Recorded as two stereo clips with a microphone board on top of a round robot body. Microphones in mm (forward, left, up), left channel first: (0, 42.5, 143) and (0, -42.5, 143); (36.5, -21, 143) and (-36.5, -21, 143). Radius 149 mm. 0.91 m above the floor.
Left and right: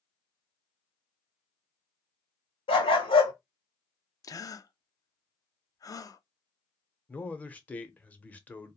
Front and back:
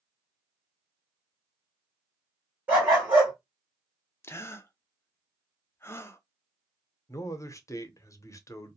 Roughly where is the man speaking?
Ahead left.